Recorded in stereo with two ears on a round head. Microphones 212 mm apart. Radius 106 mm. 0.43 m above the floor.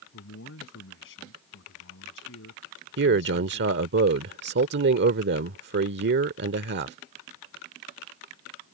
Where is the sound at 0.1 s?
55° left (ahead or behind).